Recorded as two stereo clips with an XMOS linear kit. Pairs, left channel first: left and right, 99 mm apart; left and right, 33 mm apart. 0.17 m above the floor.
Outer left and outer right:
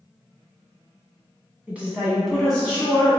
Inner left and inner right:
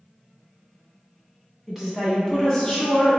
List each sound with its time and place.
1.7 s a woman speaking: 15° right (ahead or behind), 1.2 m; by 3.2 s 30° left (ahead or behind), 1.2 m